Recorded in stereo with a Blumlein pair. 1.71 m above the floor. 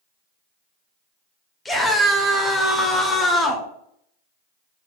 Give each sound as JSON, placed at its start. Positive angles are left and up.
{"t": 1.6, "sound": "a scream", "azimuth_deg": 10, "distance_m": 0.6}